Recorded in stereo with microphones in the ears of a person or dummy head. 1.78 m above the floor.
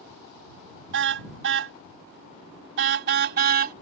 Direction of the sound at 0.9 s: 60° right (ahead or behind).